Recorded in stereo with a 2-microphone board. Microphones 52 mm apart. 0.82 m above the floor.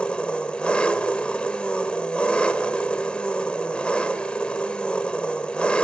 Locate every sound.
0.0 s an engine running: 20° left (ahead or behind), 1.7 m